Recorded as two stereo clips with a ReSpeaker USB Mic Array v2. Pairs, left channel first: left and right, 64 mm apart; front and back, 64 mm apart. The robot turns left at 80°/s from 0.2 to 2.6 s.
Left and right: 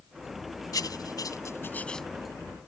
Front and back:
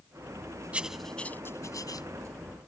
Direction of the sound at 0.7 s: 110° left.